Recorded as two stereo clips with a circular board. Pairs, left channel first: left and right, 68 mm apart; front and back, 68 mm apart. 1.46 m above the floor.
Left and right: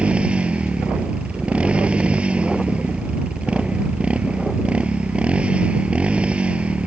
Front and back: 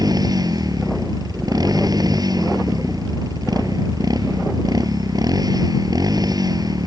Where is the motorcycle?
165° right.